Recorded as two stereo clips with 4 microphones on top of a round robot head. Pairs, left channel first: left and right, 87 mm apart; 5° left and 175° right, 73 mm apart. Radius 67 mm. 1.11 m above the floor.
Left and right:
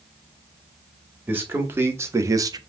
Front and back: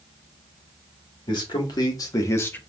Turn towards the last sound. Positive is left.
turn(degrees=-60)